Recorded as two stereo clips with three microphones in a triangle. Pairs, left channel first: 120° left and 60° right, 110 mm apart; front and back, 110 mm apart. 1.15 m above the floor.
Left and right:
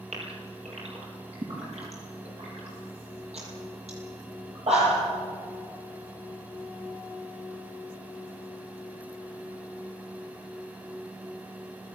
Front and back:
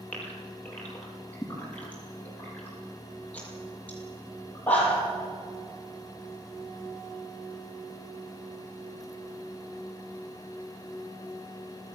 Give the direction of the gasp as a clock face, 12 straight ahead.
3 o'clock.